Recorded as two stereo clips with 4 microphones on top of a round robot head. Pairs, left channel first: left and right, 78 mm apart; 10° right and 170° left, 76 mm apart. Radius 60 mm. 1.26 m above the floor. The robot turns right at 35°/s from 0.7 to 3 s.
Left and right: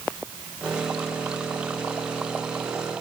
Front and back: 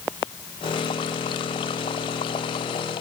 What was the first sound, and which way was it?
Only background noise.